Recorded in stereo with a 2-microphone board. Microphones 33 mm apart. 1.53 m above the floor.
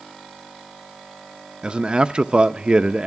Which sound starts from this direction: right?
A man speaking, at 1.6 s.